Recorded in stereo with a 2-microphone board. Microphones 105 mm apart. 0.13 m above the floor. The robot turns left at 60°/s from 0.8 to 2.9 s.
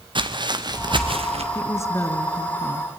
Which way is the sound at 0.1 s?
50° right (ahead or behind).